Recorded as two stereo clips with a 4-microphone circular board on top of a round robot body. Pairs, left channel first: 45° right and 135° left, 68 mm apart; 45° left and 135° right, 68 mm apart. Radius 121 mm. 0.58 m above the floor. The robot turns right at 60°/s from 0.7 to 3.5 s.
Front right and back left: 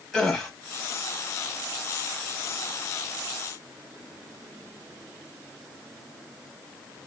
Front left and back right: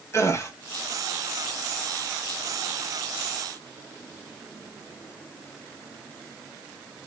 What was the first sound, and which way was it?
A gasp, 35° left.